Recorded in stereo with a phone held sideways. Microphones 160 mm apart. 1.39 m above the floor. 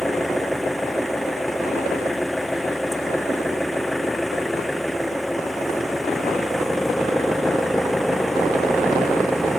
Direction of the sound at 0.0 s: Centre (ahead or behind).